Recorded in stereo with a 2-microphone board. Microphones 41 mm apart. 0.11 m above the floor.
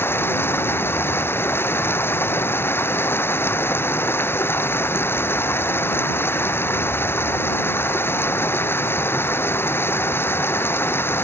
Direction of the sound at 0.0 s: 65° left (ahead or behind).